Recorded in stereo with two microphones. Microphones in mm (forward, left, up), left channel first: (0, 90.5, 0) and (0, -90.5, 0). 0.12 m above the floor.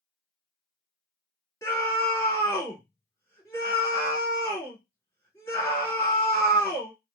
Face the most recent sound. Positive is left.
turn(degrees=15)  # may be behind; listen again after turning